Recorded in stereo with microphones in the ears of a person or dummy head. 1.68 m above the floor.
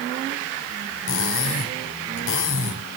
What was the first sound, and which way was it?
Cutlery clinking, 75° left (ahead or behind).